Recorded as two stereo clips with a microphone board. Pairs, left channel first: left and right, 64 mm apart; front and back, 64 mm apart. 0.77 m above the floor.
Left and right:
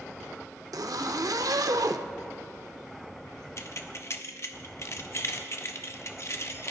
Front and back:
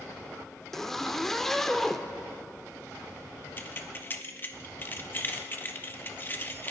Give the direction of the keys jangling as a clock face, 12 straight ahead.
10 o'clock.